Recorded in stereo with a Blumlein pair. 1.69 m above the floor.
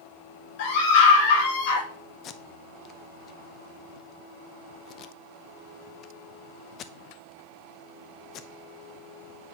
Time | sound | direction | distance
0.6 | a scream | 50° left | 5 m
2.2 | tape being pulled | 30° left | 0.6 m